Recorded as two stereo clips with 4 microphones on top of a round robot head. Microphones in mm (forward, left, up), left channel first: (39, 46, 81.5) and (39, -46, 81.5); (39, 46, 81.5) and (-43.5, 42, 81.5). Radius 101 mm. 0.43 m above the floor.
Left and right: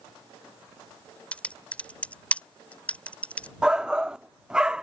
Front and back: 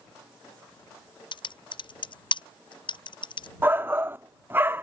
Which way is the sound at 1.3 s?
15° left.